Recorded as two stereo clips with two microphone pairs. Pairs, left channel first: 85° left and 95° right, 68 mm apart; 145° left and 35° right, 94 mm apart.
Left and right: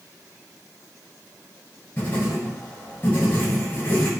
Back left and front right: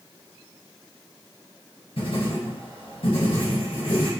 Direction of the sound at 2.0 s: 150° left.